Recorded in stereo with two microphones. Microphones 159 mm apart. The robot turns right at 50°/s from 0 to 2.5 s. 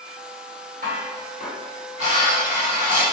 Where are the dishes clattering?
105° right, 1.3 m; by 3.0 s 20° right, 1.3 m.